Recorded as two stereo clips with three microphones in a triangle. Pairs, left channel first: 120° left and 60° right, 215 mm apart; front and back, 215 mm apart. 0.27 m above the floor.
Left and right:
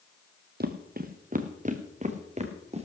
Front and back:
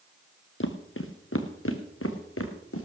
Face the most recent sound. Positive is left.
turn(degrees=0)